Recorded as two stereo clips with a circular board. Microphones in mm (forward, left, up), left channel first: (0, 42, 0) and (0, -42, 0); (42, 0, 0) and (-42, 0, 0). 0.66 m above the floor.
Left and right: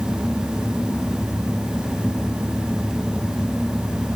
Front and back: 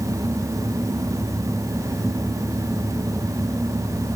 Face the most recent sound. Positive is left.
No sound to turn to.